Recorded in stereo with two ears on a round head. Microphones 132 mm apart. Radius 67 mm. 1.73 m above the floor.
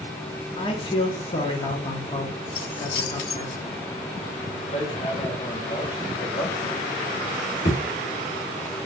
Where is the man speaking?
35° left (ahead or behind), 1.2 m.